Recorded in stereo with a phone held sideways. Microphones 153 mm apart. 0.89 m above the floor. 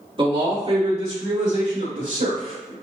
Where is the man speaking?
35° right (ahead or behind), 1.7 m; by 2.7 s 60° right (ahead or behind), 2.5 m.